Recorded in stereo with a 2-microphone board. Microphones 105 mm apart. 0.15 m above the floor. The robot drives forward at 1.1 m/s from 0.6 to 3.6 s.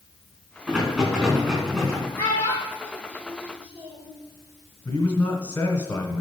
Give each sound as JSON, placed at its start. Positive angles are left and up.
{"t": 0.7, "sound": "a rattle", "side_deg": -10, "distance_m": 4.5}
{"t": 2.2, "sound": "a child speaking", "side_deg": 20, "distance_m": 3.5}
{"t": 4.8, "sound": "a man speaking", "side_deg": 20, "distance_m": 1.2}